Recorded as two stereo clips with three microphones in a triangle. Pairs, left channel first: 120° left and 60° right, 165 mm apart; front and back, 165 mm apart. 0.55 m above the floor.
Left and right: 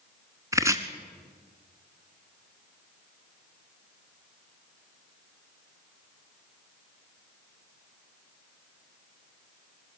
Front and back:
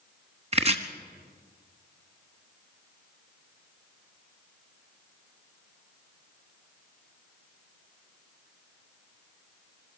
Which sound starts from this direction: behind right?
Chopping, at 0.5 s.